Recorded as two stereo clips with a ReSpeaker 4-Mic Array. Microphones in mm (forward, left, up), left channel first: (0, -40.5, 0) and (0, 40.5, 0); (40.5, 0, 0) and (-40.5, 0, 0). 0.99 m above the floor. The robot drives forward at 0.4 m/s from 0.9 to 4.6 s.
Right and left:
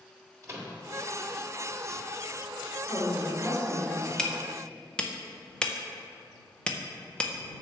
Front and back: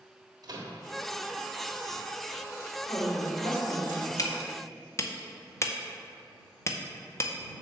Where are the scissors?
I don't hear scissors.